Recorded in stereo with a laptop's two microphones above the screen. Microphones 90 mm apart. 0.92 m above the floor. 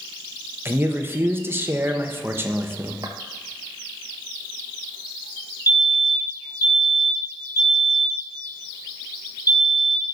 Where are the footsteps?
40° right (ahead or behind), 1.1 m.